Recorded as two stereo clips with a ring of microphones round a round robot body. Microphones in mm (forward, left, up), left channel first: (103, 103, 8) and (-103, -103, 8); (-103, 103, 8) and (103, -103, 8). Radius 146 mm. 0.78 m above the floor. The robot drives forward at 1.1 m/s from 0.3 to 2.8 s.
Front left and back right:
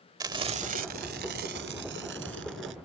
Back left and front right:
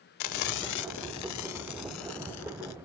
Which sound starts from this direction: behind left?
Frying, at 0.2 s.